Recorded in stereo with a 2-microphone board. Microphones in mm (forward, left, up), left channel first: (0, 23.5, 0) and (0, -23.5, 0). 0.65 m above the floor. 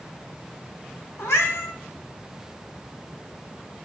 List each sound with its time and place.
1.2 s a cat meowing: 70° left (ahead or behind), 1.4 m